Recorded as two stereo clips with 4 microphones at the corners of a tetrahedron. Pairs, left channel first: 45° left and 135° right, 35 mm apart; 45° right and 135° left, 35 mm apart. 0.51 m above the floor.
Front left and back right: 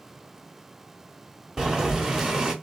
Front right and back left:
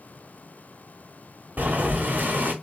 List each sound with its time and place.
1.6 s boiling: 155° left, 1.3 m